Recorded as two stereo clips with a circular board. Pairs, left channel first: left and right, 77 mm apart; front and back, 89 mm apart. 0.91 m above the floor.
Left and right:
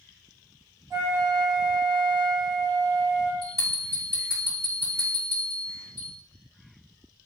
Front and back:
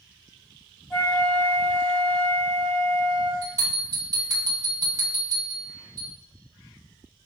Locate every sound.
0.9 s a flute: 95° right, 1.5 m
3.4 s a bell: 125° right, 2.0 m